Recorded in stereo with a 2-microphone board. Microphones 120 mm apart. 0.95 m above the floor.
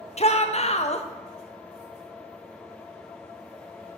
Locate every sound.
0.2 s a shout: 60° left (ahead or behind), 0.7 m